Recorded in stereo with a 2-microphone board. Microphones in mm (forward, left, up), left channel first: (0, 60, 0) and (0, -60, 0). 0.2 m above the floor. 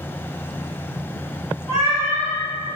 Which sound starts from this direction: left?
A cat meowing, at 1.7 s.